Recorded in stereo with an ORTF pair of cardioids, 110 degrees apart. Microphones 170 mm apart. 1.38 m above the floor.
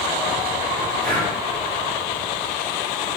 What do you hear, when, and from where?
1.0 s breathing: 50° right, 1.1 m